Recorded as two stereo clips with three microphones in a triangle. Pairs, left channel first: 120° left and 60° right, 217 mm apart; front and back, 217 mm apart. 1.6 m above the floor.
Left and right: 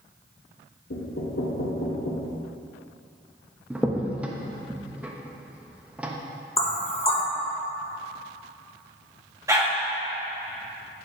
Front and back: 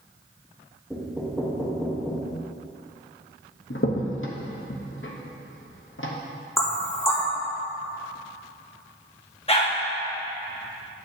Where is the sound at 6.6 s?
70° left, 0.9 m.